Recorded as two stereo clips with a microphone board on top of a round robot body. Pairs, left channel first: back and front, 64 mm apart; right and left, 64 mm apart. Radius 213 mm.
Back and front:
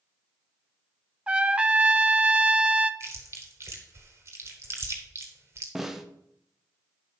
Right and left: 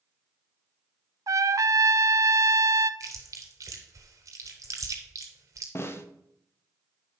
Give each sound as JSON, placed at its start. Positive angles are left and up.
{"t": 1.3, "sound": "a trumpet", "azimuth_deg": 70, "distance_m": 0.7}
{"t": 3.0, "sound": "chewing", "azimuth_deg": 50, "distance_m": 0.9}
{"t": 5.8, "sound": "a snare drum", "azimuth_deg": -85, "distance_m": 1.1}